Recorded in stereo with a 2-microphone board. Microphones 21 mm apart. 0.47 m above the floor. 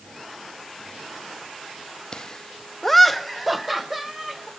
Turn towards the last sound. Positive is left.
turn(degrees=-10)  # may be behind; listen again after turning